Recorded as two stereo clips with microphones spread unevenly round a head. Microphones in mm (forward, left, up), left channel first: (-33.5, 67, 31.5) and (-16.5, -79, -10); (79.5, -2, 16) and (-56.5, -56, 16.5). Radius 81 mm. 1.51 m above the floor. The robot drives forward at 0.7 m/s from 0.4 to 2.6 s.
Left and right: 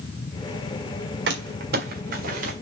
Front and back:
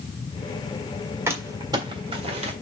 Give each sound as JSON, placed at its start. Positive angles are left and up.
{"t": 1.3, "sound": "crumpling", "azimuth_deg": -90, "distance_m": 1.7}